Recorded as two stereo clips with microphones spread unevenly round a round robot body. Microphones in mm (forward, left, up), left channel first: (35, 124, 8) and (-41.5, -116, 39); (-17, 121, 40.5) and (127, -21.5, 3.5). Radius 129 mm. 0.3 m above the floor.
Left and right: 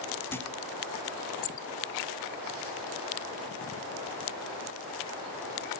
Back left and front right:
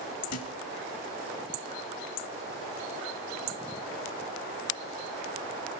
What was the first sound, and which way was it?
A thud, 150° left.